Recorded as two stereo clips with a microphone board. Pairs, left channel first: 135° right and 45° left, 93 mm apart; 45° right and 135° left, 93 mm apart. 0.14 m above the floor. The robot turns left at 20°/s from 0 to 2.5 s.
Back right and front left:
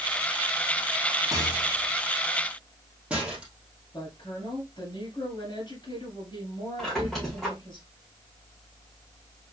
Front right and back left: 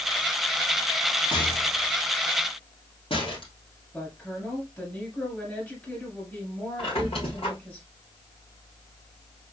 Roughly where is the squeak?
Ahead right.